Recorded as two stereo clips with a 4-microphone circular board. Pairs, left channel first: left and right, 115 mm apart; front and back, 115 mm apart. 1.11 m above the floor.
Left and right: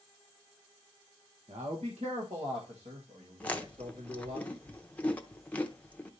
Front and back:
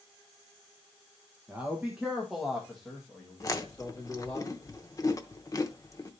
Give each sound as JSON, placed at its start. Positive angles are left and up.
{"t": 1.5, "sound": "a man speaking", "azimuth_deg": -105, "distance_m": 1.1}
{"t": 3.4, "sound": "chewing", "azimuth_deg": 25, "distance_m": 0.7}